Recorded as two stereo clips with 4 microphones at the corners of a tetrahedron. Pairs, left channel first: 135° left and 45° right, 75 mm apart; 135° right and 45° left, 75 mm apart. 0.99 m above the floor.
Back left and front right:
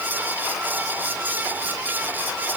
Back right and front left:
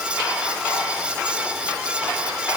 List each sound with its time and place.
Only background noise.